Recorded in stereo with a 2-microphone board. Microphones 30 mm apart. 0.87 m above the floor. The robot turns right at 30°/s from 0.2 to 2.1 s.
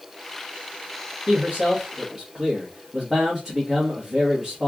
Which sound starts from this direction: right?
A man speaking, at 1.3 s.